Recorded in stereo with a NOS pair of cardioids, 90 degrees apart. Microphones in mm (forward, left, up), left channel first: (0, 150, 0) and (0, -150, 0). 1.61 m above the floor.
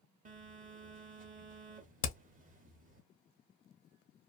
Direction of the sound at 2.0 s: 45° left.